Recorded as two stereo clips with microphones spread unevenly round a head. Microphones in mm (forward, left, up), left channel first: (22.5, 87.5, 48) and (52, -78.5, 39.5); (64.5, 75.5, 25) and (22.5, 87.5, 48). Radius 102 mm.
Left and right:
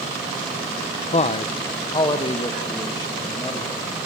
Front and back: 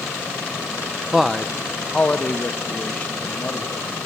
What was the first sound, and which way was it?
A man speaking, 60° left.